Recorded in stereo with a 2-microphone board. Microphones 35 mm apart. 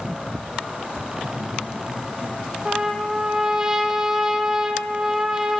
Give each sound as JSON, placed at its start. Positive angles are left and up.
{"t": 1.2, "sound": "laughter", "side_deg": 80, "distance_m": 8.5}
{"t": 2.6, "sound": "a trumpet", "side_deg": -10, "distance_m": 1.6}